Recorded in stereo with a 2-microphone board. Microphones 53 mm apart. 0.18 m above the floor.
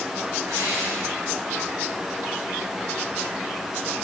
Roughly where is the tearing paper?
Right.